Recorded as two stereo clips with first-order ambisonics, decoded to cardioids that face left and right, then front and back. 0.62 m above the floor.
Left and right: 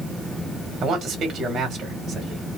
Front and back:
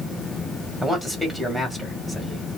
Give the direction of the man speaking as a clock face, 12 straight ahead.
3 o'clock.